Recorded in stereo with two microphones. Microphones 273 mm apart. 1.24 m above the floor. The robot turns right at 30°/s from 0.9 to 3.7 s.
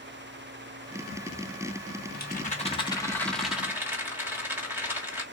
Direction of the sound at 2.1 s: 140° left.